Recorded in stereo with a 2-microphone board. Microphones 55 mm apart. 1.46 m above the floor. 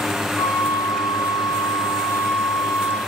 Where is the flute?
55° left (ahead or behind), 0.6 m.